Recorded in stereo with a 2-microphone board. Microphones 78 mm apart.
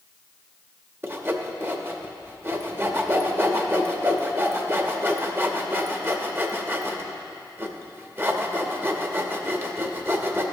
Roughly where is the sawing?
Right.